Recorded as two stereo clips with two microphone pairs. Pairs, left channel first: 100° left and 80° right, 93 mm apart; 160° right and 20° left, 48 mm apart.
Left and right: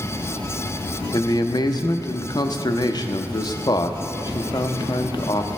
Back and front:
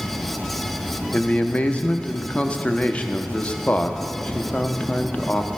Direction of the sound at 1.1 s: 140° left.